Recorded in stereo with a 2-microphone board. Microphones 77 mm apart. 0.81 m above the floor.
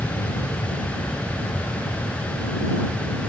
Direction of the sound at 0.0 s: 35° left (ahead or behind).